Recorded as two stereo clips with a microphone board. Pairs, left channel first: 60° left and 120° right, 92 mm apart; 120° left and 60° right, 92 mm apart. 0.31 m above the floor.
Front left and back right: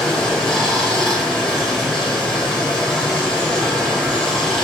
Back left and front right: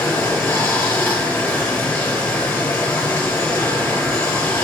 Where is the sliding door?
I don't hear a sliding door.